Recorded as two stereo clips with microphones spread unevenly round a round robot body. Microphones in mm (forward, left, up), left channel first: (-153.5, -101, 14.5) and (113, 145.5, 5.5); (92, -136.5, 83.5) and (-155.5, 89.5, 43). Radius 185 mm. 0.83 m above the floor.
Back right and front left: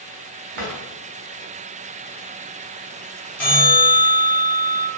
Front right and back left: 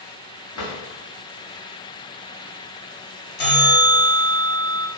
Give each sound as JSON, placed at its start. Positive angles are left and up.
{"t": 0.6, "sound": "a drawer", "azimuth_deg": 10, "distance_m": 0.9}
{"t": 3.4, "sound": "a bell", "azimuth_deg": -50, "distance_m": 1.5}